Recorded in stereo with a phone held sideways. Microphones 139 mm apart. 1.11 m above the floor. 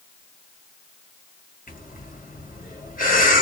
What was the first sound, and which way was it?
Breathing, 75° left (ahead or behind).